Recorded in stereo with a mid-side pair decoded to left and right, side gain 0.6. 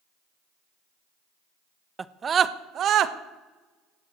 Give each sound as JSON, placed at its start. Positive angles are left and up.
{"t": 2.0, "sound": "a scream", "azimuth_deg": -25, "distance_m": 0.9}